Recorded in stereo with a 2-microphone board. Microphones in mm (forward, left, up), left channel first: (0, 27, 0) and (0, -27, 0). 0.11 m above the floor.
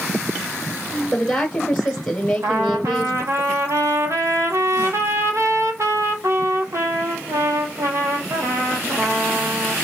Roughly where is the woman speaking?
Centre.